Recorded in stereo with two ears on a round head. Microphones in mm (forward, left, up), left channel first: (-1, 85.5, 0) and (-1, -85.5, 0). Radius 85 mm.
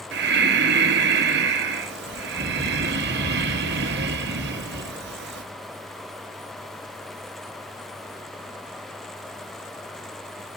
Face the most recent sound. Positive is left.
turn(degrees=-60)  # may be behind; listen again after turning